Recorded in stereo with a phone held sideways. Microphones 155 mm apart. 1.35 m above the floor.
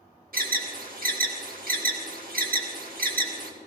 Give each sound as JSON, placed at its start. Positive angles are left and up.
{"t": 0.3, "sound": "an alarm", "side_deg": -70, "distance_m": 1.4}